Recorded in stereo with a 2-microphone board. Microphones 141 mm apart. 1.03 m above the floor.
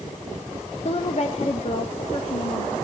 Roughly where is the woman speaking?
Left.